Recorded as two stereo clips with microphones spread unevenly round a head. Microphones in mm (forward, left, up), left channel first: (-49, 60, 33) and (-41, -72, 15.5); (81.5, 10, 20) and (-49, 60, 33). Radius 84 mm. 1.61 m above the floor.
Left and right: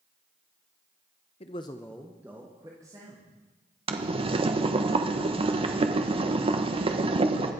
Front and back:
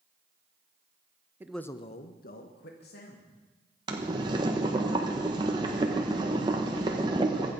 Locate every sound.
1.4 s a man speaking: 95° left, 0.7 m; by 3.3 s 15° right, 2.5 m
3.9 s boiling: 135° right, 1.1 m